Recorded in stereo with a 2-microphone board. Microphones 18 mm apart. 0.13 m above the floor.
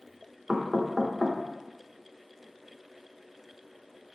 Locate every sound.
0.5 s knocking: 30° right (ahead or behind), 0.8 m